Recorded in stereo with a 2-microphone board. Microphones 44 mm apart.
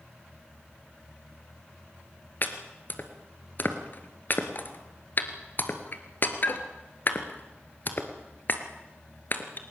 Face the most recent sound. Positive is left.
turn(degrees=45)  # may be behind; listen again after turning